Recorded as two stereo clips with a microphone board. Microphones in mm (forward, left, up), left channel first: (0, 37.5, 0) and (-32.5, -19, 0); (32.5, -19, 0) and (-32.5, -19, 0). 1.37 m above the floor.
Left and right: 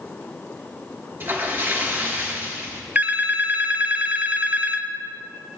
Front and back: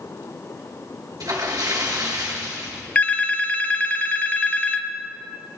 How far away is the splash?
About 2.5 m.